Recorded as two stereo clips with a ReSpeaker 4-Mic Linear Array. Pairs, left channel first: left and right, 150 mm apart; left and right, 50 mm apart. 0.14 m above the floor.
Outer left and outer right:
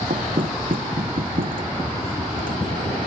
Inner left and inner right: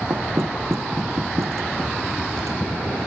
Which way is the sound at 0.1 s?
75° right (ahead or behind).